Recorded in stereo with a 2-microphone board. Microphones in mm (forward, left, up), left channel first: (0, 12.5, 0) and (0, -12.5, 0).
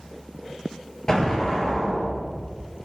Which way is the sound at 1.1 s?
25° left (ahead or behind).